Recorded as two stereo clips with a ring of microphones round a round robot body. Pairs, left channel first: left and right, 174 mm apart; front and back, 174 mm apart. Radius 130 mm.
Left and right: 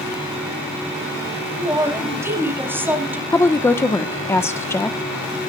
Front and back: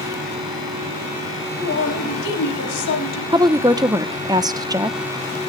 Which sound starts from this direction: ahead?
A man speaking, at 1.6 s.